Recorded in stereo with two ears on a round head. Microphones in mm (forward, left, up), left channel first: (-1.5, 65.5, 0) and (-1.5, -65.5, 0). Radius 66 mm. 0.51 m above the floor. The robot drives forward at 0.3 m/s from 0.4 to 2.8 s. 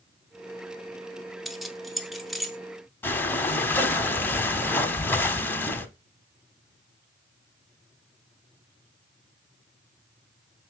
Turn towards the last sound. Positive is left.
turn(degrees=15)  # may be behind; listen again after turning